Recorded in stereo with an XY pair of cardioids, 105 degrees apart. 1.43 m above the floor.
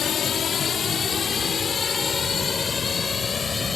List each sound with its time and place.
0.0 s a drone: 55° left; by 3.8 s 35° left